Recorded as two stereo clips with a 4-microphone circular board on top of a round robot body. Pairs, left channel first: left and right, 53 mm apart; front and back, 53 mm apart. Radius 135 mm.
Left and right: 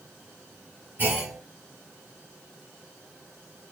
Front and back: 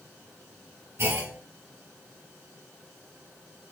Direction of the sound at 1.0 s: 145° right.